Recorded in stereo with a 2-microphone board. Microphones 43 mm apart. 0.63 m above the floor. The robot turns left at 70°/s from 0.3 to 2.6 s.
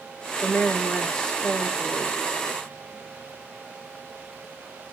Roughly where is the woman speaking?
Left.